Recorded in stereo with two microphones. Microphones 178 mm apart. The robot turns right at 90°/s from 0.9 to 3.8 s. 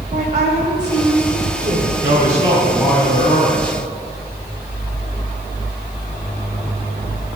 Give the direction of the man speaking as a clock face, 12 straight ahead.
2 o'clock.